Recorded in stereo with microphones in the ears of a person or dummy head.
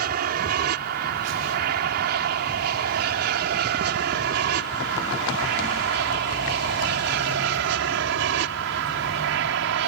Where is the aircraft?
55° right (ahead or behind); by 9.9 s 65° right (ahead or behind).